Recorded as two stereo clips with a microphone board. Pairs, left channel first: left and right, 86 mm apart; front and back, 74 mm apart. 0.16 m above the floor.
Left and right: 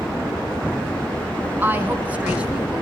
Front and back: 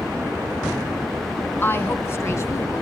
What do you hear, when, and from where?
1.6 s a woman speaking: 40° right, 1.9 m; by 2.8 s 15° right, 2 m